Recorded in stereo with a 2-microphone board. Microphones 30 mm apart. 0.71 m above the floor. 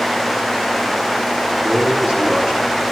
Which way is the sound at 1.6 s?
20° right (ahead or behind).